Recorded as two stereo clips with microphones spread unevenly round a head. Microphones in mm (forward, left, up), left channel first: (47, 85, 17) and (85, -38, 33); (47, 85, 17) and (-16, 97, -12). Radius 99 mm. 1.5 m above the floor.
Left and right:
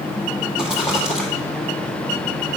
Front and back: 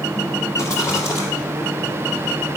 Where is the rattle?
10° left, 1.8 m.